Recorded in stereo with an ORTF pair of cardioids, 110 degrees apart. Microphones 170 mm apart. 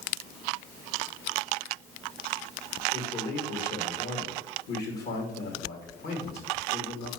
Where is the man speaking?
65° left, 2.5 m.